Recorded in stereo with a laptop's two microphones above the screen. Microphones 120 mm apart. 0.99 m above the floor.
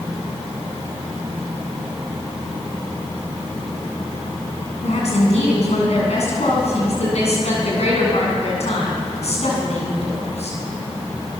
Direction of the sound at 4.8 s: 75° left (ahead or behind).